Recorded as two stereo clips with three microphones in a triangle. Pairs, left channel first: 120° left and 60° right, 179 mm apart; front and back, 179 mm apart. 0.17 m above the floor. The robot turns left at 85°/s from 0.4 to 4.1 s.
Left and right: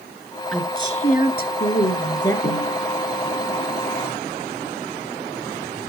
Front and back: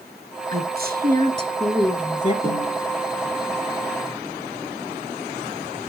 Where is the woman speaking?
155° right, 2 m; by 2.3 s 50° left, 2 m.